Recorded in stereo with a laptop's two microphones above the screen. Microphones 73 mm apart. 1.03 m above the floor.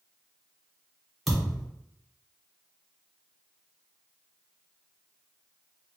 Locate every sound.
1.3 s a thud: centre (ahead or behind), 0.7 m